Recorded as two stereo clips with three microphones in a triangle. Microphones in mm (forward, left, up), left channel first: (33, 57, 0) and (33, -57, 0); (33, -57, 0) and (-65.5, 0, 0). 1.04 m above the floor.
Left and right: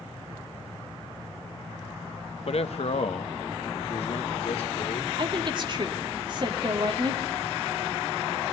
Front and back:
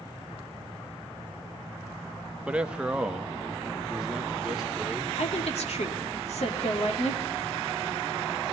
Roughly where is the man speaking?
Left.